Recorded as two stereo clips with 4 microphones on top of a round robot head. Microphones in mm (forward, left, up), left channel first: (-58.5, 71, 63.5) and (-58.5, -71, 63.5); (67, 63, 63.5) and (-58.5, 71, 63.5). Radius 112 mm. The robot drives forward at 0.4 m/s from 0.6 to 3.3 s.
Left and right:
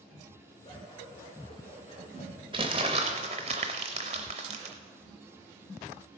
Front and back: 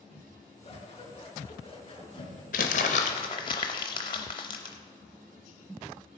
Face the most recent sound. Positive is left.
turn(degrees=-50)